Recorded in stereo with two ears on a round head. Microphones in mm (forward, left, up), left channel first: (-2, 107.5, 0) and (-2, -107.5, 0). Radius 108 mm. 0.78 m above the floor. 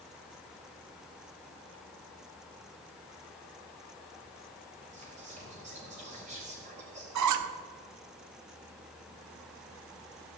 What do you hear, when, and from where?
4.9 s whispering: 30° right (ahead or behind), 3.5 m
7.2 s a squeak: 85° right, 0.6 m